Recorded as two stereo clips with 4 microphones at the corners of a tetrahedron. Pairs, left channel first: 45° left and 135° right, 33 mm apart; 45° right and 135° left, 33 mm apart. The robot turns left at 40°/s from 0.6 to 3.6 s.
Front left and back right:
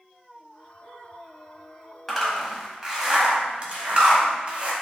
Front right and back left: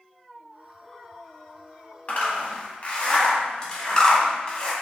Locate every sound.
2.1 s a zipper: 35° right, 0.7 m; by 4.7 s 95° right, 0.7 m